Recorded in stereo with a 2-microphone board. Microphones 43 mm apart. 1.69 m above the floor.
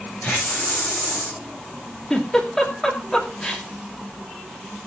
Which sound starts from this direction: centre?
A giggle, at 2.1 s.